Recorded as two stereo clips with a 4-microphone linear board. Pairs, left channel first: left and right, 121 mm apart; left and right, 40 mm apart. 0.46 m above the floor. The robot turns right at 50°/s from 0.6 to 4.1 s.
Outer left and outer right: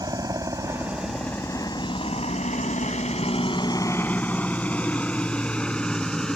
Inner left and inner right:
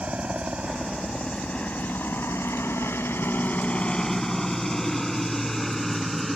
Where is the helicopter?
30° right (ahead or behind); by 6.4 s 5° left (ahead or behind).